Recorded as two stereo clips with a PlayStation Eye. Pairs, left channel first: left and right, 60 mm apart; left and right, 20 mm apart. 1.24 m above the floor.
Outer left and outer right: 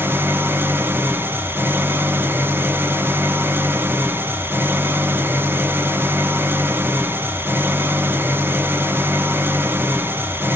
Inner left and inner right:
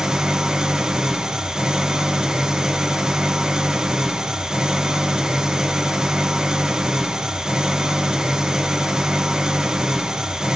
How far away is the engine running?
About 0.7 m.